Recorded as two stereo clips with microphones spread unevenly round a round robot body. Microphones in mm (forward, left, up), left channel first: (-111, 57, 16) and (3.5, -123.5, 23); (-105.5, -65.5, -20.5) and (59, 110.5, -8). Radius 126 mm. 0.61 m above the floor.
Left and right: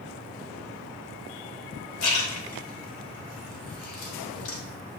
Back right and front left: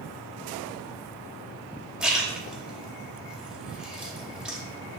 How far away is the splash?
About 1.0 m.